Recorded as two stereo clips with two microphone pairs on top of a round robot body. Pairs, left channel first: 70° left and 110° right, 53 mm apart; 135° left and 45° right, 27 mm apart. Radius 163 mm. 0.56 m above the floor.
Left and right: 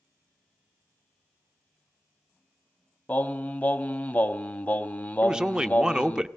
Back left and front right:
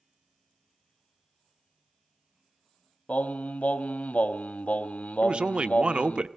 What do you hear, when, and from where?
3.1 s singing: 115° left, 1.0 m
5.2 s a man speaking: 15° right, 0.9 m